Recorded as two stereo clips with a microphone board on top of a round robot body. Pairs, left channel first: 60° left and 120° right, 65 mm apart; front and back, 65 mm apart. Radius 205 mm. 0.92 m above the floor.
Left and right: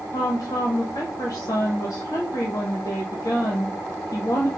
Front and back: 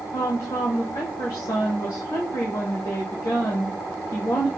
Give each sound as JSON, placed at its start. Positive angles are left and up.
{"t": 0.1, "sound": "a woman speaking", "azimuth_deg": 25, "distance_m": 0.9}